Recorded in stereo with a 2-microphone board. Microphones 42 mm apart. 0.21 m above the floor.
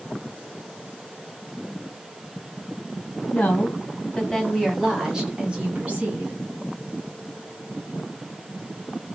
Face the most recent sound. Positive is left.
turn(degrees=-35)  # may be behind; listen again after turning